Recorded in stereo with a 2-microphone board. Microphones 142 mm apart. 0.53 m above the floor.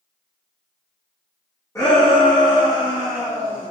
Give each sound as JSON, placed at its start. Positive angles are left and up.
{"t": 1.8, "sound": "a shout", "side_deg": 20, "distance_m": 5.5}